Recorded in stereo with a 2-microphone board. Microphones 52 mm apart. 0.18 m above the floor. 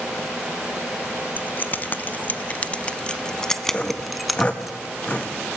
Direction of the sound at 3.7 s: 20° left (ahead or behind).